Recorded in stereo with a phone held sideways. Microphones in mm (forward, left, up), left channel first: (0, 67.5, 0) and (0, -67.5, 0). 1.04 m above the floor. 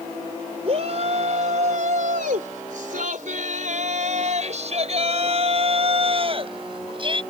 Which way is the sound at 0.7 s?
50° right (ahead or behind).